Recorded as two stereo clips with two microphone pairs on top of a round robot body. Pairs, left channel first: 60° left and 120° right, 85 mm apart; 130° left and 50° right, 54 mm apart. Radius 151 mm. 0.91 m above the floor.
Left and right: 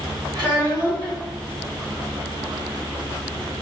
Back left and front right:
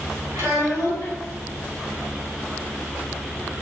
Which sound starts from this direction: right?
A child speaking, at 0.3 s.